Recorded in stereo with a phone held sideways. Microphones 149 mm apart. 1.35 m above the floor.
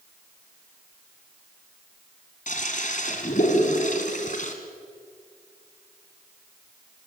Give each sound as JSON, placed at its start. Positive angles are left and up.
{"t": 2.5, "sound": "a toilet flushing", "side_deg": 60, "distance_m": 2.5}